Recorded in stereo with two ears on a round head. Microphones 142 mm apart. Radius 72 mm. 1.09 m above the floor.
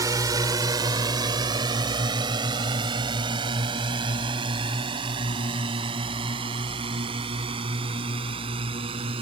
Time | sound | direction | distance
0.0 | a drone | 25° right (ahead or behind) | ?